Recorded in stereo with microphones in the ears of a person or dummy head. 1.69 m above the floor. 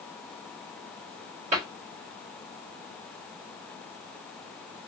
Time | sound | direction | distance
1.5 | a cupboard door | 30° right (ahead or behind) | 1.7 m